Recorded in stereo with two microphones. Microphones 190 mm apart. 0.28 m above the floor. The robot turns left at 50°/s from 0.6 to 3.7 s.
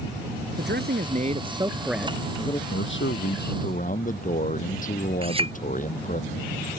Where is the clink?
30° right (ahead or behind).